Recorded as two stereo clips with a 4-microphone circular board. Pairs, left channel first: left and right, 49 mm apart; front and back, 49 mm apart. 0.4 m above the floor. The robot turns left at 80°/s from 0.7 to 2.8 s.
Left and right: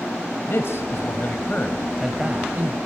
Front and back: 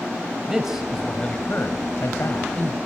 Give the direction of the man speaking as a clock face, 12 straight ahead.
9 o'clock.